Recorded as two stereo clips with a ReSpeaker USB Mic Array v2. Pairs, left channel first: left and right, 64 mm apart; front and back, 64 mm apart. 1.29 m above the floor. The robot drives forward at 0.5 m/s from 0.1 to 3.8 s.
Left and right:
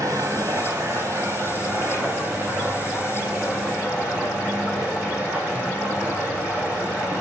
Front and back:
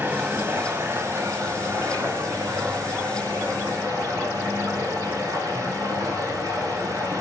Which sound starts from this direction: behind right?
Running water, at 0.0 s.